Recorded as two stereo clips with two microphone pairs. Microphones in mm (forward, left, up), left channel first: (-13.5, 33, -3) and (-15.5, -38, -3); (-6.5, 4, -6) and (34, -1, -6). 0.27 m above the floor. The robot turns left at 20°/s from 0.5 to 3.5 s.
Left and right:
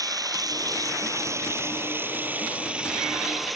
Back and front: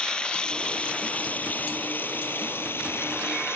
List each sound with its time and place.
0.0 s running water: 120° right; by 3.5 s straight behind